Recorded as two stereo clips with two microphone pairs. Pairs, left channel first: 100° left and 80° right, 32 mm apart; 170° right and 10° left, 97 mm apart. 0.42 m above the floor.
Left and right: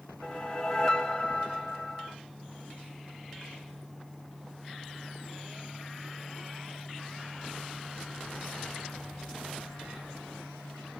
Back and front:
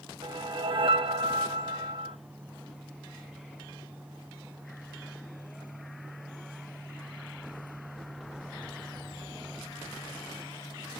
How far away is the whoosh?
About 0.9 m.